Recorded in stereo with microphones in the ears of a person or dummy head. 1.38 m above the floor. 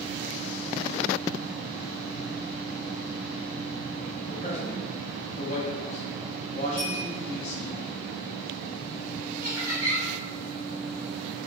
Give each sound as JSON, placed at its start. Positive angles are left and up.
{"t": 4.2, "sound": "a man speaking", "side_deg": 45, "distance_m": 0.9}
{"t": 6.8, "sound": "a bell", "side_deg": 15, "distance_m": 0.9}
{"t": 9.4, "sound": "laughter", "side_deg": -10, "distance_m": 1.2}